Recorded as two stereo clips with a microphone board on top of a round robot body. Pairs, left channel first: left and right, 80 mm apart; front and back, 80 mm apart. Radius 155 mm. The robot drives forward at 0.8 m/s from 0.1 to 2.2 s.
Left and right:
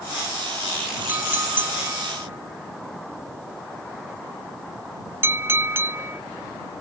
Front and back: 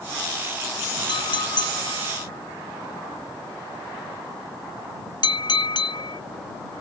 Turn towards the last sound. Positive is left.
turn(degrees=-25)